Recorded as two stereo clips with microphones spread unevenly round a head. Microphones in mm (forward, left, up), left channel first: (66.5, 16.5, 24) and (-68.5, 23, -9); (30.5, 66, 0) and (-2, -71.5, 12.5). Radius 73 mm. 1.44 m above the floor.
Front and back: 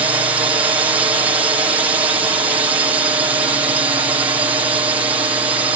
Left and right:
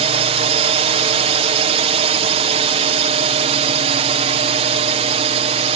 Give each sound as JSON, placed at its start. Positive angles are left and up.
{"t": 0.0, "sound": "a drone", "azimuth_deg": -125}